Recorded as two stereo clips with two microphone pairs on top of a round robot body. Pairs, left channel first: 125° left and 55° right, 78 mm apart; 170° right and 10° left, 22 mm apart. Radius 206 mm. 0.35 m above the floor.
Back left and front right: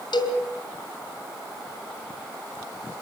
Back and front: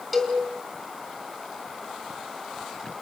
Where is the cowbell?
105° left, 3.5 m.